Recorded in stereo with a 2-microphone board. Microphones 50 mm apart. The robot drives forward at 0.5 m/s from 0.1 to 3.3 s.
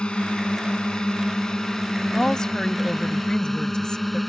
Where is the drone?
20° left (ahead or behind); by 4.3 s centre (ahead or behind).